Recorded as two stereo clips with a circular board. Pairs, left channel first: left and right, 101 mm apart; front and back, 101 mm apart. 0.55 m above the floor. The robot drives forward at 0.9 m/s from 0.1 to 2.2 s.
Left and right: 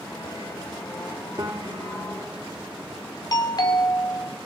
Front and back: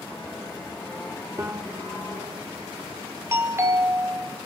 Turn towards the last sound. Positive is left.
turn(degrees=125)